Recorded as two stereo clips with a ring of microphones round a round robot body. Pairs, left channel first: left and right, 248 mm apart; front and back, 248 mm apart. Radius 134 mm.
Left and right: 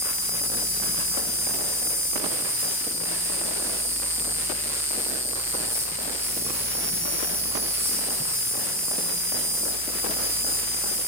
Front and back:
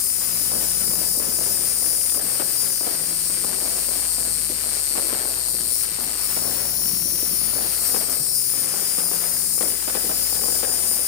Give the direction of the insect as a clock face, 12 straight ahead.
12 o'clock.